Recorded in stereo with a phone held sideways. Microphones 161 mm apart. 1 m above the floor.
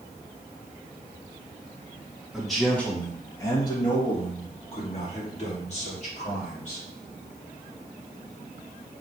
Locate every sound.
2.3 s a man speaking: 5° right (ahead or behind), 1.4 m; by 6.8 s 50° left (ahead or behind), 3.5 m